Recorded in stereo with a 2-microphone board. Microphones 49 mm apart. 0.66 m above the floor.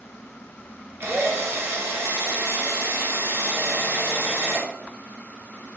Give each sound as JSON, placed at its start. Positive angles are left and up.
{"t": 1.0, "sound": "a drill", "side_deg": -60, "distance_m": 1.6}